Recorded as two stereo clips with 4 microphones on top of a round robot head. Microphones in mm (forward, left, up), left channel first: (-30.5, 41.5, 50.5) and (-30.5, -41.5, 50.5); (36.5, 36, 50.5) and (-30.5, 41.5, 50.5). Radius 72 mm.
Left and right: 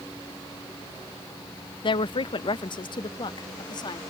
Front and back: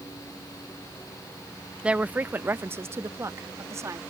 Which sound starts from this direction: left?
A woman speaking, at 1.8 s.